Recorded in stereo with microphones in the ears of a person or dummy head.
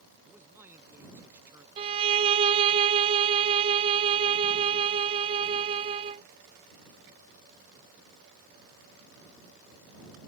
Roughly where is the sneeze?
No sneeze in this recording.